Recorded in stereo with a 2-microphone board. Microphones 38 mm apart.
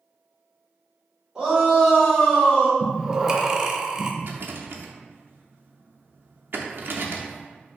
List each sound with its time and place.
1.4 s a shout: 15° right (ahead or behind), 2.0 m; by 2.7 s 25° left (ahead or behind), 1.3 m
2.8 s breathing: 20° right (ahead or behind), 0.5 m
4.2 s a rattle: 60° right (ahead or behind), 0.5 m